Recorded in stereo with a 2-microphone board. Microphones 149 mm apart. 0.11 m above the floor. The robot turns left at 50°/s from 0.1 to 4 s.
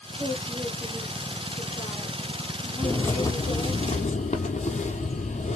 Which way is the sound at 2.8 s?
Straight behind.